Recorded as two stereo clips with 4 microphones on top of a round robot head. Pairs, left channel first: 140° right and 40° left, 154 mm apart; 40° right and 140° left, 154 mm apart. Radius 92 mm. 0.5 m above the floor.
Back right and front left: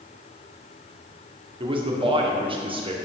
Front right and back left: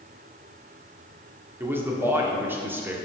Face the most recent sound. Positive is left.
turn(degrees=70)